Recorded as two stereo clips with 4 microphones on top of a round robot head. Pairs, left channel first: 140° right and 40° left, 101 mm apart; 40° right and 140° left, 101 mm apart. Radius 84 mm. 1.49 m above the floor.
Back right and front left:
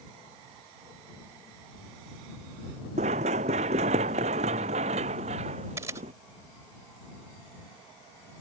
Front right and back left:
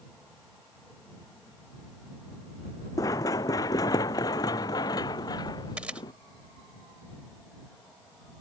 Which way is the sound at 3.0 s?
20° left.